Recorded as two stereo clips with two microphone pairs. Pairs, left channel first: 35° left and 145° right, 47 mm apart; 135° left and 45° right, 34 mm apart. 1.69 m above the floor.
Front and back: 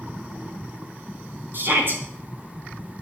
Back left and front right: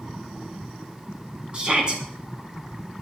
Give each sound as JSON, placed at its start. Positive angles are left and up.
{"t": 1.5, "sound": "a shout", "azimuth_deg": -105, "distance_m": 4.5}